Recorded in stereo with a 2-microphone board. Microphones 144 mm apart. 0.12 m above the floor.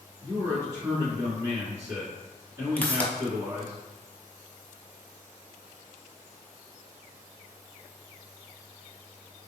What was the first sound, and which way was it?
A man speaking, 20° right (ahead or behind).